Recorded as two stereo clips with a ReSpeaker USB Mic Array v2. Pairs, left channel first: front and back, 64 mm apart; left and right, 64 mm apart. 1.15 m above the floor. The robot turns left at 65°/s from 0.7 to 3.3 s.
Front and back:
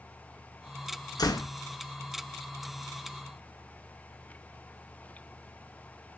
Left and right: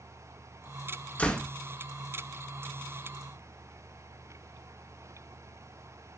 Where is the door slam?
20° left, 1.3 m; by 1.5 s straight ahead, 1.3 m.